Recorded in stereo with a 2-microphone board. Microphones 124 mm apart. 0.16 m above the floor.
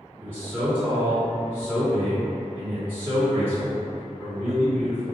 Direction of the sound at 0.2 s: 15° left (ahead or behind).